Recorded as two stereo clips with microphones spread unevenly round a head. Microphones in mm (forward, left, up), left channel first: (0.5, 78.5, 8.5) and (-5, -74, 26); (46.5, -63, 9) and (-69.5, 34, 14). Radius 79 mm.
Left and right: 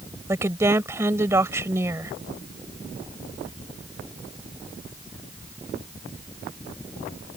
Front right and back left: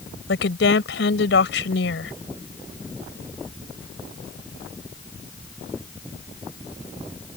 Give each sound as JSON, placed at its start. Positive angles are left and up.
{"t": 0.3, "sound": "a woman speaking", "azimuth_deg": -20}